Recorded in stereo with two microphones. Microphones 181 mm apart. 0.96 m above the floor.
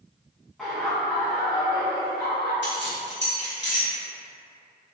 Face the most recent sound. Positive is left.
turn(degrees=80)